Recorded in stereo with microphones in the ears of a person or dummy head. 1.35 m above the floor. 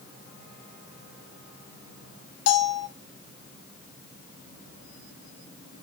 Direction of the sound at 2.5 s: 60° left (ahead or behind).